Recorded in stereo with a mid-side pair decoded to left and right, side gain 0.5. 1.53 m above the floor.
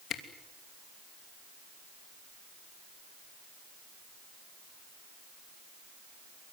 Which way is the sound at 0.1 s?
60° left.